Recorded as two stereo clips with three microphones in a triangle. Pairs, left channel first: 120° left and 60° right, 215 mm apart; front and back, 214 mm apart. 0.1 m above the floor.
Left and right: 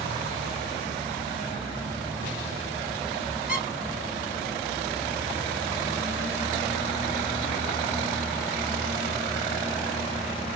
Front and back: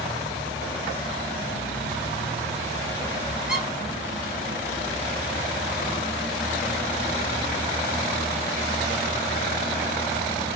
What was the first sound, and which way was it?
A squeak, 95° left.